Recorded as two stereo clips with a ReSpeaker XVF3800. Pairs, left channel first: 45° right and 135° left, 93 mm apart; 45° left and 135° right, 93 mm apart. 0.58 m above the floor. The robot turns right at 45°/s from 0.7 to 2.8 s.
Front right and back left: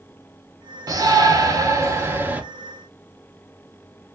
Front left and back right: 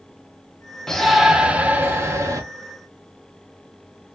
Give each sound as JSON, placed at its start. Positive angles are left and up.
{"t": 0.9, "sound": "a shout", "azimuth_deg": 125, "distance_m": 0.8}